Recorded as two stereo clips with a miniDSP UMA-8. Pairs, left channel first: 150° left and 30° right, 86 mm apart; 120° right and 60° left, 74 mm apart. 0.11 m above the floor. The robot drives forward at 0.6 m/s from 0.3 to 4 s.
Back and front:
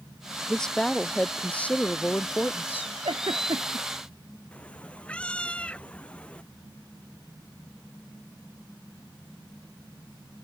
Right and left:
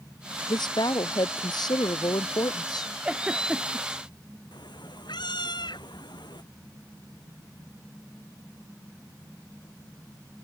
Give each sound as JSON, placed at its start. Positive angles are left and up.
{"t": 0.5, "sound": "a woman speaking", "azimuth_deg": -130}
{"t": 3.0, "sound": "a giggle", "azimuth_deg": -10}
{"t": 4.5, "sound": "a cat meowing", "azimuth_deg": -135}